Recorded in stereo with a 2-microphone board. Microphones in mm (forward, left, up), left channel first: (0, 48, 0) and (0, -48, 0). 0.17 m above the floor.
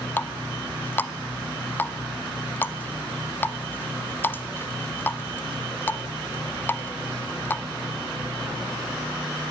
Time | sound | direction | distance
0.2 | a running tap | 20° left (ahead or behind) | 0.7 m